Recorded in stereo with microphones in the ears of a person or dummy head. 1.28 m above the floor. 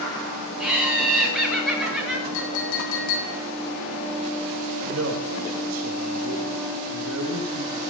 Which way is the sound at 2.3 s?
80° left.